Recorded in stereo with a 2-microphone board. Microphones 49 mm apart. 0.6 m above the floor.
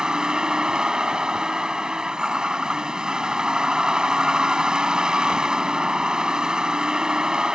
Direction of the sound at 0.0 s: 15° right (ahead or behind).